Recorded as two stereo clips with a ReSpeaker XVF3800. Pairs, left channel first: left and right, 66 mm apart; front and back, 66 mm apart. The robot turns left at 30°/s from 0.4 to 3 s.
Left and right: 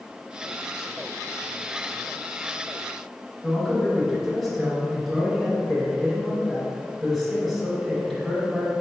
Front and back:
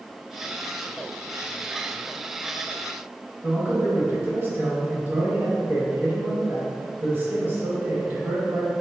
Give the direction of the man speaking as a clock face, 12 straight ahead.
6 o'clock.